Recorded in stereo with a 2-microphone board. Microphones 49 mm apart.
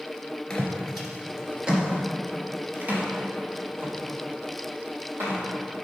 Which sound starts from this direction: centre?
Footsteps, at 0.5 s.